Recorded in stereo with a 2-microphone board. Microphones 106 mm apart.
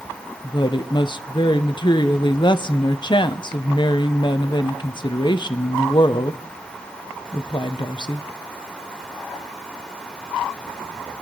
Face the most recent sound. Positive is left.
turn(degrees=45)  # may be behind; listen again after turning